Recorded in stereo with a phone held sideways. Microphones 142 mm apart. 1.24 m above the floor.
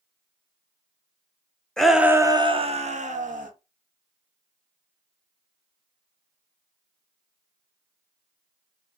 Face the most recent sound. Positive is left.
turn(degrees=-70)  # may be behind; listen again after turning